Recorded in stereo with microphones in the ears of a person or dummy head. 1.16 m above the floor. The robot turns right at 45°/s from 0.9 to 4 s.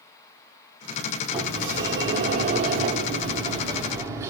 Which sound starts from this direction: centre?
A sliding door, at 1.3 s.